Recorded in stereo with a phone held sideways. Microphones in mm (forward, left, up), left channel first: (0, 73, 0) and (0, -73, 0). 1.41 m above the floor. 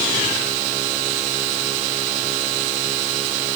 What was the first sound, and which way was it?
Only background noise.